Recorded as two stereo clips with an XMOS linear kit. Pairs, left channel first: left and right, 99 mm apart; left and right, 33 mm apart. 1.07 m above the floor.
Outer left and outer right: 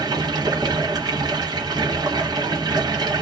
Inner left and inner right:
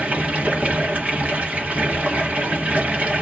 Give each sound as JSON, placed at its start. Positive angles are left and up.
{"t": 0.0, "sound": "running water", "side_deg": -45, "distance_m": 1.0}